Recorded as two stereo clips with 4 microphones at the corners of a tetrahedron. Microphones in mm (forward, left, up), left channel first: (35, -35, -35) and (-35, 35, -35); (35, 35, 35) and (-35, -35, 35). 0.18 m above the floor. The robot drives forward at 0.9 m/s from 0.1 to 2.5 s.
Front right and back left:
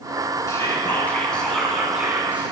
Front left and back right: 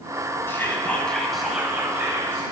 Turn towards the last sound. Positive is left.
turn(degrees=-170)